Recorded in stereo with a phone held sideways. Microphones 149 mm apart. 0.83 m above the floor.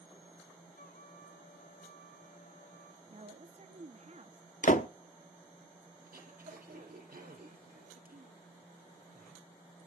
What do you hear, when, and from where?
0.8 s a trumpet: 80° left, 7 m
3.1 s a woman speaking: 50° right (ahead or behind), 1.4 m
4.6 s a door slam: 60° left (ahead or behind), 1.1 m
6.0 s throat clearing: 80° right, 4 m